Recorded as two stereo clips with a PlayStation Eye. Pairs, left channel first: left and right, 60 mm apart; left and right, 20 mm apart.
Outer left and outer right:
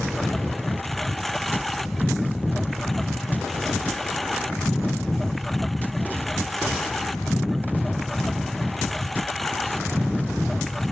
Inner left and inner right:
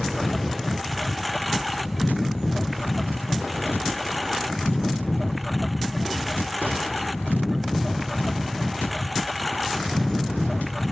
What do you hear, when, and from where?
0.0 s a lawn mower: centre (ahead or behind)